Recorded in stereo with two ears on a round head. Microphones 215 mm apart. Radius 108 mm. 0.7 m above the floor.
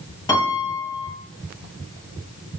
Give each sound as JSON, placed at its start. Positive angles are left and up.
{"t": 0.3, "sound": "a piano", "side_deg": 15, "distance_m": 9.5}